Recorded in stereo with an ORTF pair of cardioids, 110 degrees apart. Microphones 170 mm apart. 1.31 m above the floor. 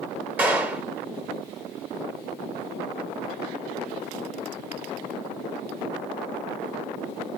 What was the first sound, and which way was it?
A clap, 10° right.